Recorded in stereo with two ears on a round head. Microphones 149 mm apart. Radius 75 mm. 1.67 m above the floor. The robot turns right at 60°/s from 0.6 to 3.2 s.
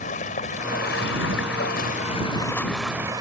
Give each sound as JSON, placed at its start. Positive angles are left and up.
{"t": 0.0, "sound": "running water", "azimuth_deg": 45}